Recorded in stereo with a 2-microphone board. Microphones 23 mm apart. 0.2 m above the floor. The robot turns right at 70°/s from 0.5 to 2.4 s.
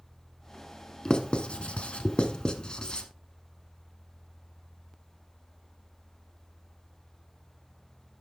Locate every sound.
1.1 s writing: 35° left (ahead or behind), 1.1 m; by 3.1 s 40° left (ahead or behind), 1.1 m